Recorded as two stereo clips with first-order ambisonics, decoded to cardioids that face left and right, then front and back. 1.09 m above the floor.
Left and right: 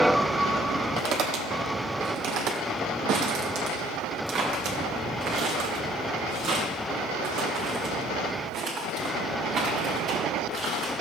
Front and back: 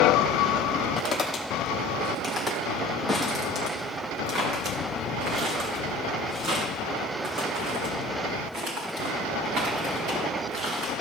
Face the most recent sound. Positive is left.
turn(degrees=-145)